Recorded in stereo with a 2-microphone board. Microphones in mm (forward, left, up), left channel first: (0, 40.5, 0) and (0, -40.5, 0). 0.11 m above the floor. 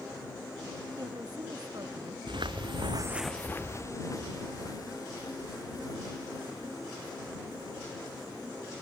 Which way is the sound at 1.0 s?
50° right (ahead or behind).